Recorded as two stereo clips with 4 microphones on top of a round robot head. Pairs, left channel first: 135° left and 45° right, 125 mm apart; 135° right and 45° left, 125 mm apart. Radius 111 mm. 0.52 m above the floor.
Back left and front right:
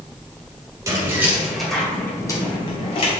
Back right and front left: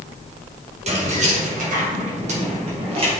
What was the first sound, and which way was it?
Keys jangling, 20° left.